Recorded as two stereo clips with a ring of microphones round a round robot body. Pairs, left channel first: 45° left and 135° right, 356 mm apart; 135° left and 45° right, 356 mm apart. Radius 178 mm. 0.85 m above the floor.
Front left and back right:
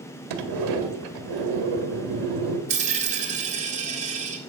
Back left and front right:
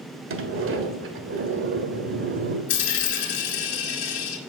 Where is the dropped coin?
155° left, 1.7 m.